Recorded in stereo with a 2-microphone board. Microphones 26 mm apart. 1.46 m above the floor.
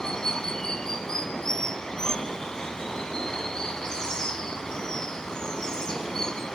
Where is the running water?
25° left (ahead or behind), 2 m.